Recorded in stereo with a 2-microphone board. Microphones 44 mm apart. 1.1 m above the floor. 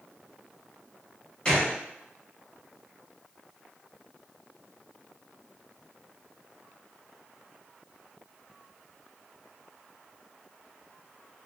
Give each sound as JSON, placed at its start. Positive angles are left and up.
{"t": 1.4, "sound": "a gunshot", "side_deg": 20, "distance_m": 1.3}